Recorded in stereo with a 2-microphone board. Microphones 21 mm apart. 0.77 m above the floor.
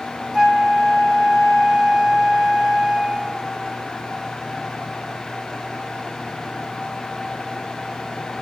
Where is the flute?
35° right (ahead or behind), 1.3 m.